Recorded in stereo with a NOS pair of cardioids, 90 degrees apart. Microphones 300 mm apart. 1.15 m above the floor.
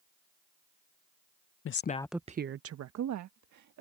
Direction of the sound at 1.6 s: 45° left.